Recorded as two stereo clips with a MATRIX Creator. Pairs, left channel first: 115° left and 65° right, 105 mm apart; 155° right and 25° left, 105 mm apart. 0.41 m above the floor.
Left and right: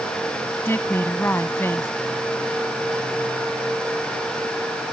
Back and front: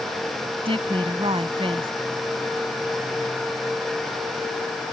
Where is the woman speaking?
45° left.